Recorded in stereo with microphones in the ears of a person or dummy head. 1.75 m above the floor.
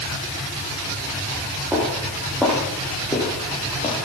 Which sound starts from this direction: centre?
Footsteps, at 1.7 s.